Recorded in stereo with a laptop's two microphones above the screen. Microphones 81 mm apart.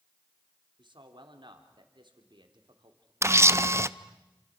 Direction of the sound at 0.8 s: 75° right (ahead or behind).